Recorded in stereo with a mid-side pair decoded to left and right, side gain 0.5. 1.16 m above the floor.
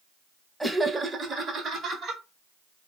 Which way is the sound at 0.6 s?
5° right.